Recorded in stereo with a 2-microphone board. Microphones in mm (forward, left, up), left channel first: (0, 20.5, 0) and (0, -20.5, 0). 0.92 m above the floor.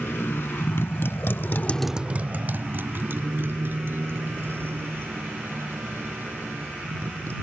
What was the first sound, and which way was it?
A motorcycle, 70° left (ahead or behind).